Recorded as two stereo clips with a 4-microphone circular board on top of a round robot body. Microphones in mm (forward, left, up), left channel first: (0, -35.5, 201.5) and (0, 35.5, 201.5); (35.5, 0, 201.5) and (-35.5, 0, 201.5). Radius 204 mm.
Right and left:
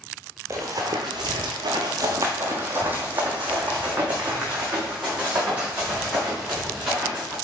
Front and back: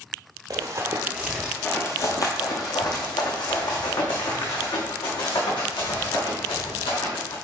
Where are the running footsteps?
140° left, 0.8 m; by 7.3 s 10° left, 4.5 m.